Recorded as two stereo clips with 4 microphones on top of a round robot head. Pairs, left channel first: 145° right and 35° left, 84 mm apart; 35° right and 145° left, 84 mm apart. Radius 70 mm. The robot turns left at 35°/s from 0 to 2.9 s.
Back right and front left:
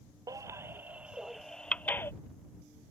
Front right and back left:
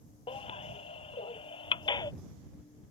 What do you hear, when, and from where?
0.3 s a baby crying: 15° right; by 2.1 s 80° right